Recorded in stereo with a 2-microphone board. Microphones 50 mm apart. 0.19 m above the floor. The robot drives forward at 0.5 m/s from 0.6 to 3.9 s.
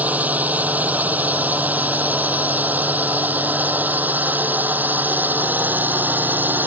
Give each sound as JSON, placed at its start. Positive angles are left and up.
{"t": 0.0, "sound": "a drone", "side_deg": -35}